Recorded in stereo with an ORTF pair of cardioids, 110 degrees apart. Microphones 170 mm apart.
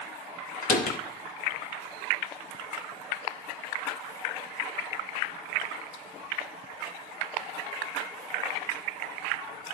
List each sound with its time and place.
0.6 s a door slam: 55° left, 2.5 m